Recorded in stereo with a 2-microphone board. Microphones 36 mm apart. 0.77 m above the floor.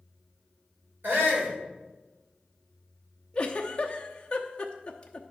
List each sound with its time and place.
1.0 s a shout: 75° right (ahead or behind), 3 m
3.3 s a giggle: 30° left (ahead or behind), 0.8 m